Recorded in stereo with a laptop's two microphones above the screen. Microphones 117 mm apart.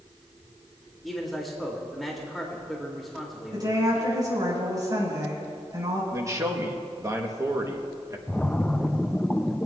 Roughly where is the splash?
Centre.